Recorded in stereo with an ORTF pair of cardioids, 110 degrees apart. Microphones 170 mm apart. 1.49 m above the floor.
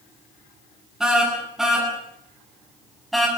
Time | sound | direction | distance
1.0 | a car horn | 5° right | 9.5 m